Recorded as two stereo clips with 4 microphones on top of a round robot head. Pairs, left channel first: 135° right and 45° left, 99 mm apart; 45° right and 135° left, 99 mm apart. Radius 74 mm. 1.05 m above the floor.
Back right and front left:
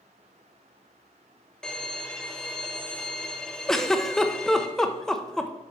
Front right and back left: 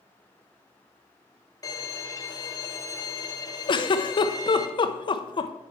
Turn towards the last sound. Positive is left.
turn(degrees=-50)